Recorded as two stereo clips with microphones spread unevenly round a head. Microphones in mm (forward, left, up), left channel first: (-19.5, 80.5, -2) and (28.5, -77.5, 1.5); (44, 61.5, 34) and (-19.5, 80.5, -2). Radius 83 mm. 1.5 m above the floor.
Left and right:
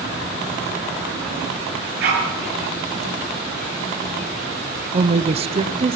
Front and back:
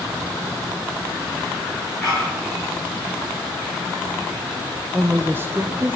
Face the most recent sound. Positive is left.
turn(degrees=-130)